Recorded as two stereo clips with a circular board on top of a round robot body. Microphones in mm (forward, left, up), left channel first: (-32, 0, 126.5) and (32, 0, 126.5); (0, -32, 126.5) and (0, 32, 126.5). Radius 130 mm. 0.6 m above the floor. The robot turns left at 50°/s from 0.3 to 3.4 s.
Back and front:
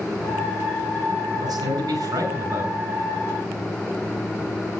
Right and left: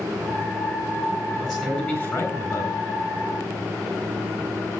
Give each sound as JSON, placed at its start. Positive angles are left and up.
{"t": 1.4, "sound": "a man speaking", "azimuth_deg": 0, "distance_m": 7.5}